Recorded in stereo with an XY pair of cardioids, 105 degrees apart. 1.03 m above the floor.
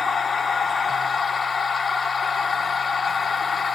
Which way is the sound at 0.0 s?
40° left.